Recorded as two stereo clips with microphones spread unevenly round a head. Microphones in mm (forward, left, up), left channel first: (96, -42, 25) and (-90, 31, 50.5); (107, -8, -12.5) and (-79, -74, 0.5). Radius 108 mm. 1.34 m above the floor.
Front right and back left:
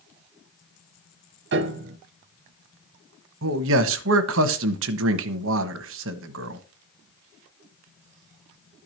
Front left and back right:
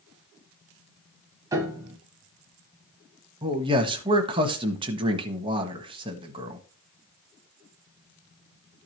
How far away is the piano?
About 1.2 m.